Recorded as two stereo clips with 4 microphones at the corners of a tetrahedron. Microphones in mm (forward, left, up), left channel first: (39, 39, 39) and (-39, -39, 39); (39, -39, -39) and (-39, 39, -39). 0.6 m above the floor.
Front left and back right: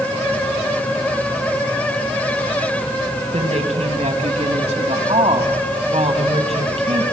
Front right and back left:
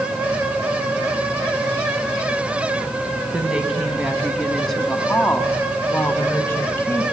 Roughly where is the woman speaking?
Behind right.